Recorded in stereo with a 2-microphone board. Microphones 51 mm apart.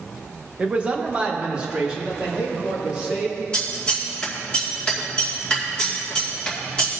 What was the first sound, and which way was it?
A man speaking, 25° right (ahead or behind).